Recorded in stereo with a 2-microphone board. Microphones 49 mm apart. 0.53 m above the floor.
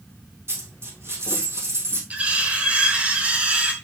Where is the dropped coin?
60° right (ahead or behind), 3 m.